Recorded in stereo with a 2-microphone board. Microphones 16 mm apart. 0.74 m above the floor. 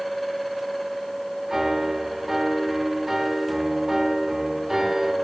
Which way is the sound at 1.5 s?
20° right (ahead or behind).